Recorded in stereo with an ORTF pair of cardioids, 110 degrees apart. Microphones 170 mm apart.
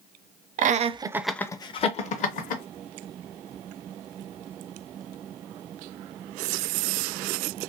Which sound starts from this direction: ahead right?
Laughter, at 0.6 s.